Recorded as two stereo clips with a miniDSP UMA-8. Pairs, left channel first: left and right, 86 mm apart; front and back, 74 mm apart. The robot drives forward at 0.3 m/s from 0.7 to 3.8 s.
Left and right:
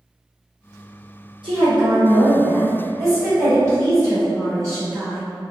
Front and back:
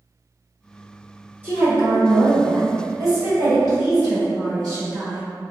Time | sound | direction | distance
1.4 | a woman speaking | 115° right | 0.8 m